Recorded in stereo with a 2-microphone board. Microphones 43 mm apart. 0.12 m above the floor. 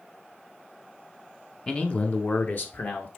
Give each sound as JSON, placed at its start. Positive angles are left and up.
{"t": 1.7, "sound": "a man speaking", "side_deg": 20, "distance_m": 1.1}